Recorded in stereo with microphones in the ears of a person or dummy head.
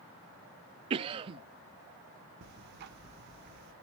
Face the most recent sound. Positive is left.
turn(degrees=-55)  # may be behind; listen again after turning